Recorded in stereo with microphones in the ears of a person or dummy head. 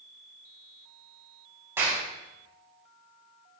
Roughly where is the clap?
Centre.